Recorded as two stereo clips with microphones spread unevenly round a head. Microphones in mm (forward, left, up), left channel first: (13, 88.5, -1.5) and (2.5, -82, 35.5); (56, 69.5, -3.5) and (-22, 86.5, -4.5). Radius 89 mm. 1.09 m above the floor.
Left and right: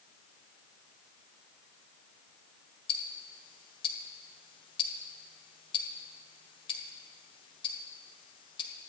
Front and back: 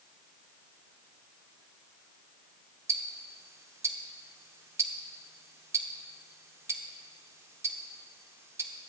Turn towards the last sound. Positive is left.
turn(degrees=150)